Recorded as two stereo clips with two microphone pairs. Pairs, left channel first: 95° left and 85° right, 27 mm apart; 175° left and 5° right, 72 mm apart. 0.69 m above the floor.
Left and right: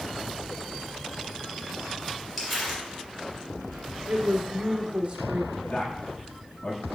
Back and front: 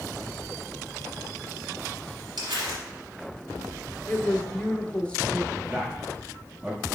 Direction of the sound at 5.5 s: 70° left.